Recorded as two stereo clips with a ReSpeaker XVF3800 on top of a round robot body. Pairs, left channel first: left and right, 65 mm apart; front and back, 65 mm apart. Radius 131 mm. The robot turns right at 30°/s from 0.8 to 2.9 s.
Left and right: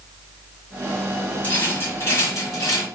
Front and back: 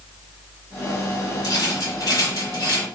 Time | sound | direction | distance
1.4 | a rattle | 25° left | 1.5 m